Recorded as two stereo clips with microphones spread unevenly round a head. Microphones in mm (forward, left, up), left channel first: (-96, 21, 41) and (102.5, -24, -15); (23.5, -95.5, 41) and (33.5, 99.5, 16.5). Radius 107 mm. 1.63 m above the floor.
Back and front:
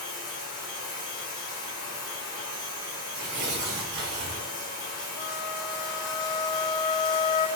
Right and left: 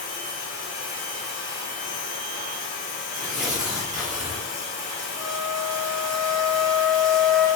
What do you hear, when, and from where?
0.0 s running water: 135° right, 1.8 m
3.1 s tearing paper: 5° right, 1.9 m
5.2 s a flute: 175° left, 0.9 m